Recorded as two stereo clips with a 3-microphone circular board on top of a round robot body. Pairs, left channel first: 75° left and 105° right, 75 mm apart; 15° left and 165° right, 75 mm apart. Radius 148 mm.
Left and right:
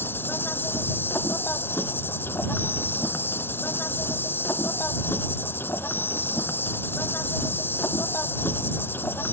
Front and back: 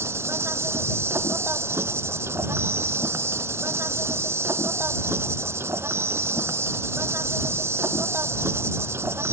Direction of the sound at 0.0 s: 140° left.